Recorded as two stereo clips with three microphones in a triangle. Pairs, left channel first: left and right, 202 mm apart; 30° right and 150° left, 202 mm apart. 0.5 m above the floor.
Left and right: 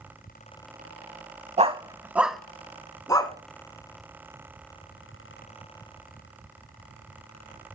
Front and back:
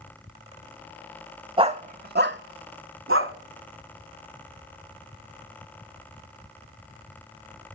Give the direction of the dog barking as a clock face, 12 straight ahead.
5 o'clock.